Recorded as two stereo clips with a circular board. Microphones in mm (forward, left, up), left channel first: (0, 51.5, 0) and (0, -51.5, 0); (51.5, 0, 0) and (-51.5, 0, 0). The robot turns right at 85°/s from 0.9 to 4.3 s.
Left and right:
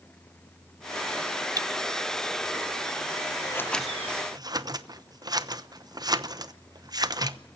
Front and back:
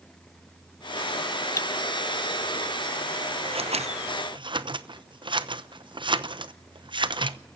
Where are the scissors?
145° left, 0.9 m; by 7.4 s 140° right, 0.9 m.